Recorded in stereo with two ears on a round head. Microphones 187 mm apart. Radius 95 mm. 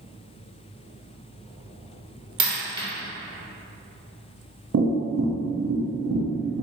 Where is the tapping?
55° right (ahead or behind), 0.6 m.